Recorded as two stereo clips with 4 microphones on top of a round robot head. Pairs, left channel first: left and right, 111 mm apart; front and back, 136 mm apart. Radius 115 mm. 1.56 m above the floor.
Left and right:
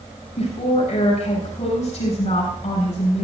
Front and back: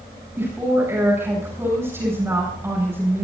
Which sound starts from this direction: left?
A woman speaking, at 0.4 s.